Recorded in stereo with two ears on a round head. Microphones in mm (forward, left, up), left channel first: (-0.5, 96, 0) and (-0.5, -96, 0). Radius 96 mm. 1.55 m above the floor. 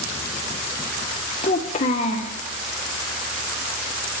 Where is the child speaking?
30° left (ahead or behind), 0.7 m.